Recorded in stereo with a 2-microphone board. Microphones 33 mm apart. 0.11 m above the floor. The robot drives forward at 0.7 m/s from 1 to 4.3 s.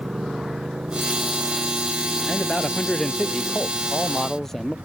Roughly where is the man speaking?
Left.